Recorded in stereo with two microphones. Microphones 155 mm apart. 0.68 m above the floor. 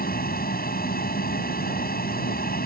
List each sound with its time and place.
0.0 s an aircraft: 70° left (ahead or behind)